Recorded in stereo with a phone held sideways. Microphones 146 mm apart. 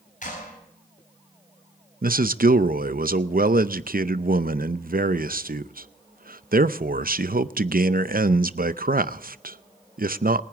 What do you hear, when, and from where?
0.2 s a clap: 60° left (ahead or behind), 7.5 m
2.0 s a man speaking: 80° right, 0.6 m